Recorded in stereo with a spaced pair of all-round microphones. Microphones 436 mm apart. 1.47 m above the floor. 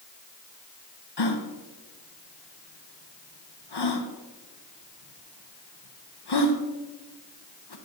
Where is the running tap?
I don't hear a running tap.